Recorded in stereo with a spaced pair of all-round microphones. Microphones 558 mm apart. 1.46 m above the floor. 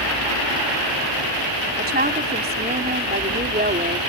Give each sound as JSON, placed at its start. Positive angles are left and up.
{"t": 1.8, "sound": "a woman speaking", "side_deg": -15}